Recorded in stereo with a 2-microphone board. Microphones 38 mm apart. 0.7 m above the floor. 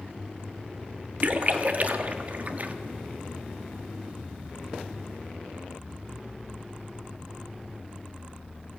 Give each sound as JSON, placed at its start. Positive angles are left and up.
{"t": 1.2, "sound": "a splash", "side_deg": -45, "distance_m": 1.2}